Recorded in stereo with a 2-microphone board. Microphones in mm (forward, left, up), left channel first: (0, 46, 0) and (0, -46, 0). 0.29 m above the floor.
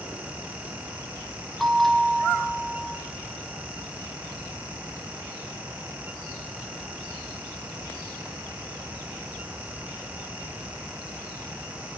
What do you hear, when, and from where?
1.6 s a bell: centre (ahead or behind), 5 m